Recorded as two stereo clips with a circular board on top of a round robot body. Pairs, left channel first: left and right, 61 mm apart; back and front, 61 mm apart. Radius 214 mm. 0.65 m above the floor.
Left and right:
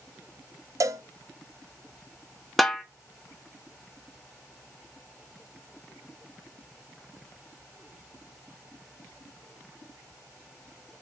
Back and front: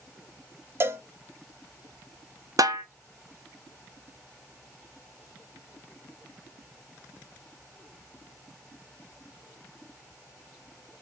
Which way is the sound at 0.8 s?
55° right.